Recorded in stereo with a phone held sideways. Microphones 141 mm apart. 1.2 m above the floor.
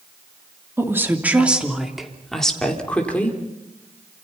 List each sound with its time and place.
0.8 s a woman speaking: 20° right (ahead or behind), 3 m; by 3.4 s 10° left (ahead or behind), 4.5 m